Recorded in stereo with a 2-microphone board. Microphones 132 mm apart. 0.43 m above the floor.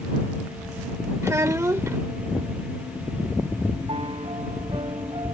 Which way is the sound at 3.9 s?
45° right (ahead or behind).